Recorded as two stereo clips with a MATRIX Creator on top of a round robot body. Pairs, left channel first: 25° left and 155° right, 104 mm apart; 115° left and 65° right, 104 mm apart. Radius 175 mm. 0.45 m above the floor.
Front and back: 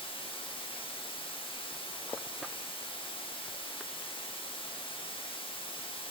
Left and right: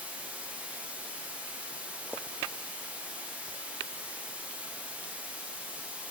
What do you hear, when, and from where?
0.0 s running water: 5° left, 1.8 m